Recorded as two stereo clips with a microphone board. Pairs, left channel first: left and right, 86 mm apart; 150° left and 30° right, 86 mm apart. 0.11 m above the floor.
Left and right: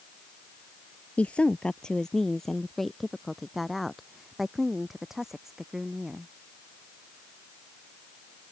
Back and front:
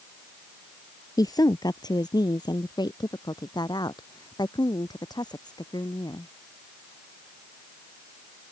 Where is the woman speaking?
160° left; by 6.3 s 175° right.